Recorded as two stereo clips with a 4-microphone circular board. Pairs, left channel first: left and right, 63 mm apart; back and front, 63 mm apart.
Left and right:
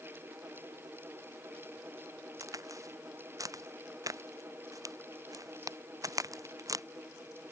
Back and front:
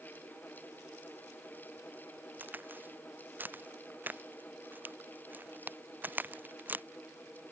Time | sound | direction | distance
2.4 | a crack | 65° right | ?